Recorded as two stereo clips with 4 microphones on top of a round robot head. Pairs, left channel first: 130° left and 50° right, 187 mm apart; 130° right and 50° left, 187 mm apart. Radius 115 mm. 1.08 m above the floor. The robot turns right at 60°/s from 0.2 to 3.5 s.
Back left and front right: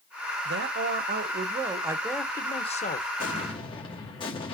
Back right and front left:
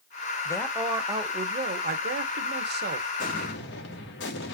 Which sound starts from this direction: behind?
An explosion, at 3.2 s.